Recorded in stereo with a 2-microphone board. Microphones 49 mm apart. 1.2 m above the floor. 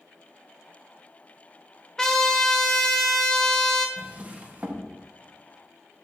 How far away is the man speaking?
I don't hear a man speaking.